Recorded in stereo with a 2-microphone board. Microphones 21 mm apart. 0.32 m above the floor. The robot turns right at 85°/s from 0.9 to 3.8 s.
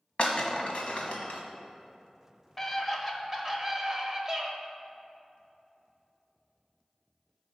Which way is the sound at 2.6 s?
10° left (ahead or behind).